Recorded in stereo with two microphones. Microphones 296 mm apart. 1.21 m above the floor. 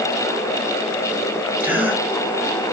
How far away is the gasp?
About 1.3 m.